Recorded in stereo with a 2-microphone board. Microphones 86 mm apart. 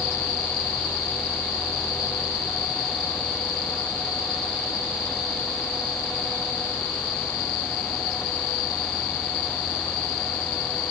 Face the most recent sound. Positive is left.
No sound to turn to.